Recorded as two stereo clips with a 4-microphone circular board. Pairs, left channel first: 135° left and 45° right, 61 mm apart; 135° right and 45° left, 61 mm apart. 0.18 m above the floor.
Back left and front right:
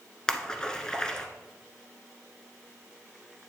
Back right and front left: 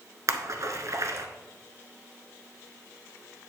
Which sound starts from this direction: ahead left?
A splash, at 0.3 s.